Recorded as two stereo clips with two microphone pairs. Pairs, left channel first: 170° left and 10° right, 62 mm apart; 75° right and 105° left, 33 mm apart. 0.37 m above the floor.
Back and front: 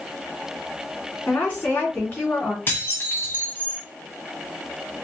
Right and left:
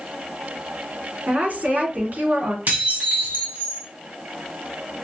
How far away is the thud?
No thud in this recording.